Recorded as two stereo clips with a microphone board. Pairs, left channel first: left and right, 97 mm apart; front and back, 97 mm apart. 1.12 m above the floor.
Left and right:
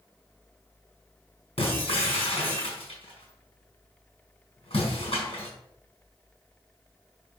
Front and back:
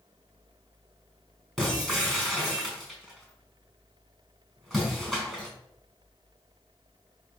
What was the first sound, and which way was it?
Breaking glass, 90° left.